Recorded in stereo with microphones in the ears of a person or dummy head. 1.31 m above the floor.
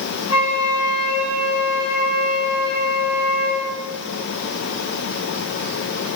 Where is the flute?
30° left (ahead or behind), 8 m.